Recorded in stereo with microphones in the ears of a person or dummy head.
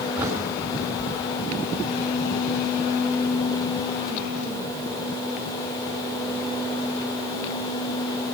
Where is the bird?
10° right (ahead or behind), 5.5 m.